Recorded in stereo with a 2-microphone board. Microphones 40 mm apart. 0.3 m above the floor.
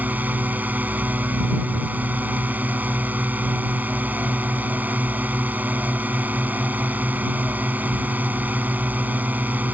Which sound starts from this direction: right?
A drone, at 0.0 s.